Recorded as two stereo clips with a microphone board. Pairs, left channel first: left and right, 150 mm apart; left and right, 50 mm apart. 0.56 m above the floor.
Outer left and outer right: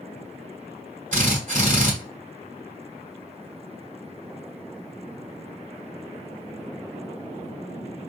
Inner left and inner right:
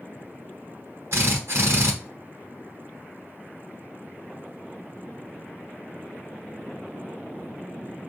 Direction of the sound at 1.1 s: 55° right (ahead or behind).